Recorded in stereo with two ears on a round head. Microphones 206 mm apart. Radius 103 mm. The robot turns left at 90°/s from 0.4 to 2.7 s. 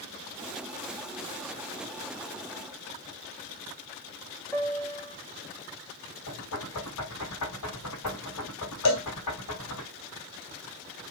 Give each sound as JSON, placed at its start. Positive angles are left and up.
{"t": 4.5, "sound": "a piano", "side_deg": 5, "distance_m": 3.0}
{"t": 6.3, "sound": "knocking", "side_deg": 80, "distance_m": 6.5}
{"t": 8.8, "sound": "a cowbell", "side_deg": 80, "distance_m": 3.0}